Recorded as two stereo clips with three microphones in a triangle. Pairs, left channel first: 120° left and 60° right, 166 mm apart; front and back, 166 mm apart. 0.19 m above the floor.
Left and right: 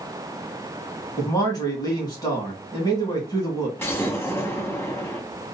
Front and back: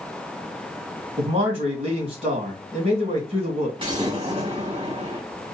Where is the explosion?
Straight behind, 1.7 m.